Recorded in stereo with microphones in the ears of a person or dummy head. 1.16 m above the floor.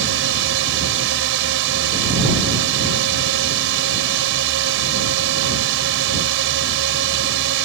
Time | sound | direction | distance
0.0 | a drone | 70° right (ahead or behind) | ?